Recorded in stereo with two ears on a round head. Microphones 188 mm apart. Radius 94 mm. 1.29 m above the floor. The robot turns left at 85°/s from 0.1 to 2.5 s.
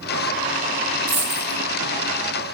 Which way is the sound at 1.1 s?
25° right (ahead or behind).